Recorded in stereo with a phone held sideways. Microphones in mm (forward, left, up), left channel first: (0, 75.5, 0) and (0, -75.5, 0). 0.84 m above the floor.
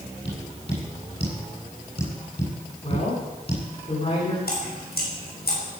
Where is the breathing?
No breathing in this recording.